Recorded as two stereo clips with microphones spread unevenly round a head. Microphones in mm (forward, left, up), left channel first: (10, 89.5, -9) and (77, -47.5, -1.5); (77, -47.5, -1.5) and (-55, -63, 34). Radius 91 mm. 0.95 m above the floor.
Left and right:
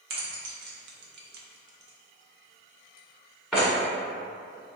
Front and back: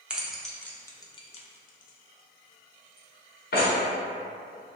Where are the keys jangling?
90° right, 0.8 m; by 3.7 s 25° left, 1.4 m.